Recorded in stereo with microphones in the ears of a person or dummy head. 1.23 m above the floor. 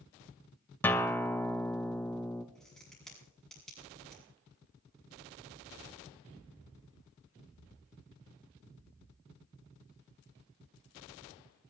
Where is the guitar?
10° left (ahead or behind), 0.7 m.